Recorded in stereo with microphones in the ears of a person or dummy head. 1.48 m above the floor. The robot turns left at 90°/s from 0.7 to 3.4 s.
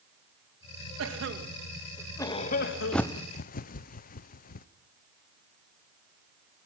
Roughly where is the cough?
Right.